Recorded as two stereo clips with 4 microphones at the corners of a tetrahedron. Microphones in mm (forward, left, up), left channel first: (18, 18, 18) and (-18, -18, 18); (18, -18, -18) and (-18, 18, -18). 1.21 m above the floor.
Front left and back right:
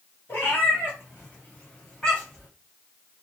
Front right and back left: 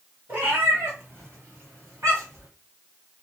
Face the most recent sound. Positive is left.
turn(degrees=125)